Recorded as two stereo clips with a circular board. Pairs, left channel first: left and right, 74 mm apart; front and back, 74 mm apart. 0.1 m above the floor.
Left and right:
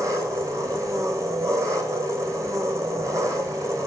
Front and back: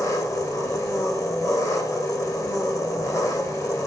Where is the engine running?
45° right, 2.5 m.